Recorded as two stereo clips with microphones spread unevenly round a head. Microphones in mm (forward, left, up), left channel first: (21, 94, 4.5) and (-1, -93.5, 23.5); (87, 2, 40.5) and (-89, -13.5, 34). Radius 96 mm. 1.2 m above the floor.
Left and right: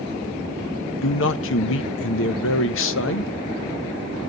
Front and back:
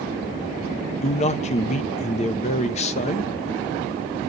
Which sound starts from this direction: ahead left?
A man speaking, at 1.0 s.